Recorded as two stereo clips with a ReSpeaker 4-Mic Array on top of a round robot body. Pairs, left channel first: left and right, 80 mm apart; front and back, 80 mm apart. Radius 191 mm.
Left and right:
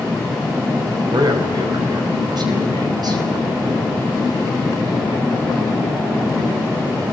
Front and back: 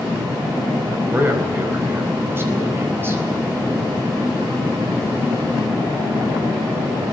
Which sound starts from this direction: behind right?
A man speaking, at 1.1 s.